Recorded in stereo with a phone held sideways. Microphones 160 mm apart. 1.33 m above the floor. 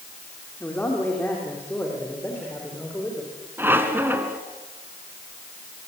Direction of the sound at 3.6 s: 15° right (ahead or behind).